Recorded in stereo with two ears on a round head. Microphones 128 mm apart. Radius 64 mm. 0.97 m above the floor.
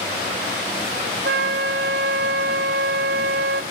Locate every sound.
1.2 s a flute: 85° right, 3.5 m